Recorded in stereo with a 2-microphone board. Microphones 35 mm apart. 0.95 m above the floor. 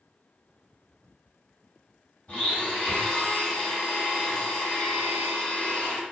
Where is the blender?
50° left (ahead or behind), 1.6 m.